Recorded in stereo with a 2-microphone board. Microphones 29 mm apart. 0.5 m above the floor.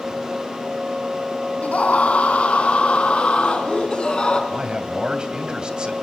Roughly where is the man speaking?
Right.